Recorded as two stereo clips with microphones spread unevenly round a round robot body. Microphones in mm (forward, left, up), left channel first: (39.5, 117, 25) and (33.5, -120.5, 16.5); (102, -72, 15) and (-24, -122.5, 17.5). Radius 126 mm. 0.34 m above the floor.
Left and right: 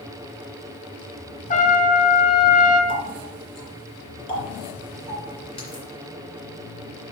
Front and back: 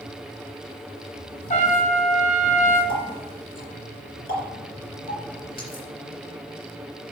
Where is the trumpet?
35° left, 2.5 m.